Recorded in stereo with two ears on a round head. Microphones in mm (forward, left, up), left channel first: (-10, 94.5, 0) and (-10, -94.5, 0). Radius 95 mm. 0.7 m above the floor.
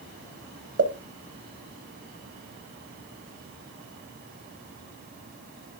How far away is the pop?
About 1.1 m.